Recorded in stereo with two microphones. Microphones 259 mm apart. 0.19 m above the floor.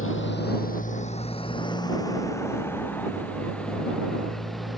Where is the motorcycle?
50° left (ahead or behind); by 4.8 s centre (ahead or behind).